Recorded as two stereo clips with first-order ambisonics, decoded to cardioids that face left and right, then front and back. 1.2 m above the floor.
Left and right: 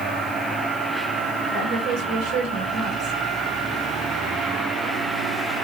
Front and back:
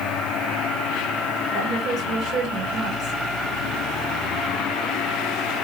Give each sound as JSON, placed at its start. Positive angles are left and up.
{"t": 1.5, "sound": "a woman speaking", "azimuth_deg": -130, "distance_m": 1.8}